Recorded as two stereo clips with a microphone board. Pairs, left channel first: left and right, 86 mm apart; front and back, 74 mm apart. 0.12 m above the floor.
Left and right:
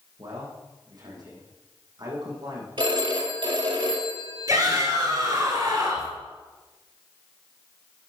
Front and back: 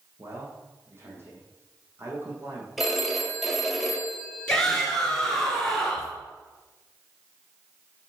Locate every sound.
0.2 s a man speaking: 125° right, 5 m
2.8 s a phone ringing: 90° right, 2 m
4.5 s a shout: 75° right, 2 m